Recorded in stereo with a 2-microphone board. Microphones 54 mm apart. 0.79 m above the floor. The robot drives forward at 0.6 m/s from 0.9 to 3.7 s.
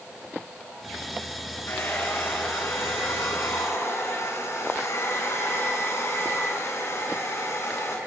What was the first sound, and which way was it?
A hair dryer, 50° left (ahead or behind).